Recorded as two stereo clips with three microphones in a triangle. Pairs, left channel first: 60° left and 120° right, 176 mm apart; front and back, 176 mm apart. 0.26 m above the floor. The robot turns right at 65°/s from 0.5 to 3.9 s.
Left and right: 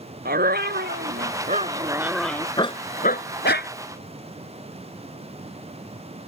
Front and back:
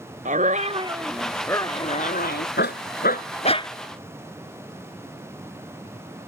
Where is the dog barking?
140° right; by 3.7 s 70° left.